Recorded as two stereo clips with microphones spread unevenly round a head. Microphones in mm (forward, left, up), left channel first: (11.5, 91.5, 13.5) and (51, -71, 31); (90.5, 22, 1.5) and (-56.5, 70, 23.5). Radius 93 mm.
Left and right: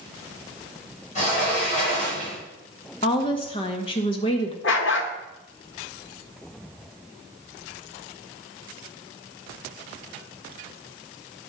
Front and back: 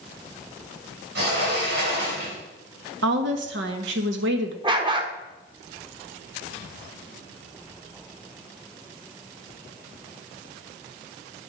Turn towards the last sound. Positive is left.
turn(degrees=115)